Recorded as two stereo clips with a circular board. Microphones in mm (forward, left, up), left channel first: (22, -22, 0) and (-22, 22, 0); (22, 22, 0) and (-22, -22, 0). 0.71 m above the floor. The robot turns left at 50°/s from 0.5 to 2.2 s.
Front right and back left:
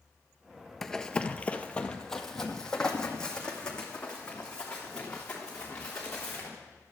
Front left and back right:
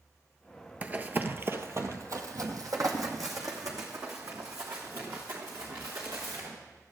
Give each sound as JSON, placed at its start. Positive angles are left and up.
{"t": 0.8, "sound": "running footsteps", "azimuth_deg": -120, "distance_m": 0.7}